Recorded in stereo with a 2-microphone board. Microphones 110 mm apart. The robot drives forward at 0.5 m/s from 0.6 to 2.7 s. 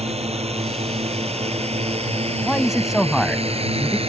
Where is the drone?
65° right (ahead or behind); by 4.1 s 55° right (ahead or behind).